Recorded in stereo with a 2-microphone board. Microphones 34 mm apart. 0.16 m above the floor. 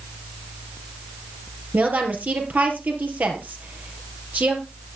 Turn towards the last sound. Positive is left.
turn(degrees=-60)  # may be behind; listen again after turning